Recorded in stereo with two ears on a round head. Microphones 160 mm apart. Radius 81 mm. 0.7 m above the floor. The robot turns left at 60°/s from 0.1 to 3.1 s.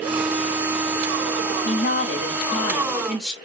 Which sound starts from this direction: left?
A woman speaking, at 1.6 s.